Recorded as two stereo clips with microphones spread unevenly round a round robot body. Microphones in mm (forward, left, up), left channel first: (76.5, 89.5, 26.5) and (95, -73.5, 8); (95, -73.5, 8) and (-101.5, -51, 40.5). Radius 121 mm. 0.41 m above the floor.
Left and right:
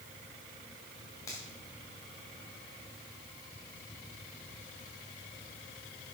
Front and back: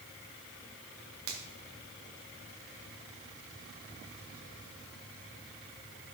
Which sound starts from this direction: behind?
A finger snap, at 1.3 s.